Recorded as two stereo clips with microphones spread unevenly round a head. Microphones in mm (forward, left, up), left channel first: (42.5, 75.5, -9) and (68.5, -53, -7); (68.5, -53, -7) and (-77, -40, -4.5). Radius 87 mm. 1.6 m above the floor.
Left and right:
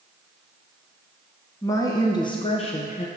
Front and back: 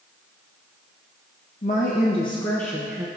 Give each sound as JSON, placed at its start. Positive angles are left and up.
{"t": 1.6, "sound": "a woman speaking", "azimuth_deg": 35, "distance_m": 1.2}